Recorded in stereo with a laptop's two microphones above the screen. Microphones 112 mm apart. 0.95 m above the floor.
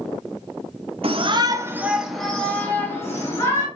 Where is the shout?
55° right (ahead or behind), 0.6 m; by 3.7 s 25° left (ahead or behind), 1.5 m.